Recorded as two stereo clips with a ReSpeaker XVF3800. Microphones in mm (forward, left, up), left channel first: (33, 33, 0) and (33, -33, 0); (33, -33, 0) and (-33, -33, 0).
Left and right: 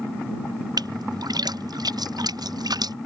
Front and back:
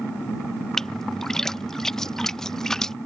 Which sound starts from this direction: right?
A splash, at 0.8 s.